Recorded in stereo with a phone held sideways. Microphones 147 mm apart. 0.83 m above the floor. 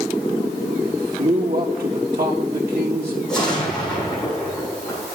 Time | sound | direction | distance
0.8 | a man speaking | 80° right | 4 m
3.3 | an explosion | 5° left (ahead or behind) | 7 m